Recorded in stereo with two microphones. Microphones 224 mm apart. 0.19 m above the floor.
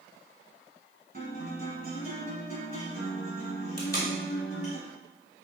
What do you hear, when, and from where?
1.1 s a guitar: 40° right (ahead or behind), 1.9 m
3.8 s tape being pulled: 40° left (ahead or behind), 1.0 m